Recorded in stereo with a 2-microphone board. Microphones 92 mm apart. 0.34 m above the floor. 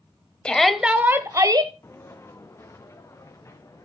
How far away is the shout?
About 1.2 m.